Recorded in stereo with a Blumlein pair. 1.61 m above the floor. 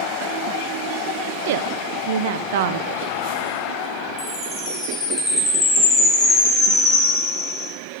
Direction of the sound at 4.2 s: 25° left.